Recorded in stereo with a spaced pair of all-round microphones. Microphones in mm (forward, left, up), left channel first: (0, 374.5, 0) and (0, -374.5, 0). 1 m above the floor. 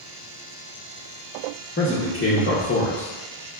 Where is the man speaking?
20° left (ahead or behind), 0.5 m.